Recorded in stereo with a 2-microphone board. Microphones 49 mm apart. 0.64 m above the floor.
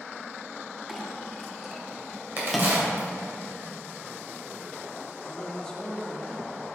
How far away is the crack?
About 2.5 m.